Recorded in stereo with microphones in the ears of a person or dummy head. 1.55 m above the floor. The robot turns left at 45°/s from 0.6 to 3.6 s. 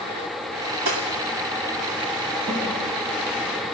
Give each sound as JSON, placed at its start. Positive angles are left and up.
{"t": 0.8, "sound": "cutlery clinking", "side_deg": -60, "distance_m": 2.5}
{"t": 2.5, "sound": "a snare drum", "side_deg": -65, "distance_m": 7.0}